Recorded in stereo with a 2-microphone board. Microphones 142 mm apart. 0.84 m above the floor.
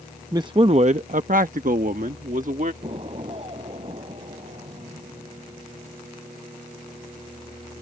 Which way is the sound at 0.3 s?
25° right (ahead or behind).